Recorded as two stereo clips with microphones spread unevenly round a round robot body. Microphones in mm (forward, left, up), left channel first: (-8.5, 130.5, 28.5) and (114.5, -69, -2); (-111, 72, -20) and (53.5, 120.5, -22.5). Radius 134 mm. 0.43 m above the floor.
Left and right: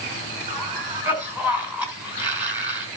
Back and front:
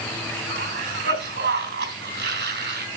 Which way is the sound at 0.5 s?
25° left.